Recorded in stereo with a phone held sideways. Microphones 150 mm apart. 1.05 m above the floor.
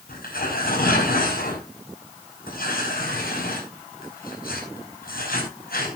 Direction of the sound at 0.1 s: 80° left.